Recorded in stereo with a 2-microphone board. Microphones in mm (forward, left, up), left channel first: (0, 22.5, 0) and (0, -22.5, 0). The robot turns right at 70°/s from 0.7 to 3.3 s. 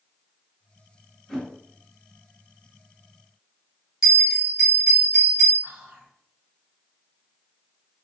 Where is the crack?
I don't hear a crack.